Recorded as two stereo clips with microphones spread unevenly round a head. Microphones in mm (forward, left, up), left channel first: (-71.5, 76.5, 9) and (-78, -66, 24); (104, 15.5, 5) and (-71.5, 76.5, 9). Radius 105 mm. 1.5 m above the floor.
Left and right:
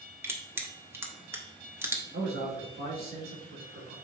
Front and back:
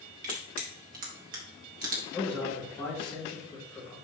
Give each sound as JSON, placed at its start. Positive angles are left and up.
{"t": 0.2, "sound": "crushing", "azimuth_deg": -160, "distance_m": 1.5}
{"t": 2.1, "sound": "a man speaking", "azimuth_deg": -95, "distance_m": 3.0}